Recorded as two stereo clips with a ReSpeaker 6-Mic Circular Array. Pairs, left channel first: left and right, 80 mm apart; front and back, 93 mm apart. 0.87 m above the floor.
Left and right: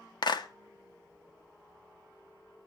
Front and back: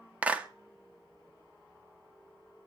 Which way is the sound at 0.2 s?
105° left.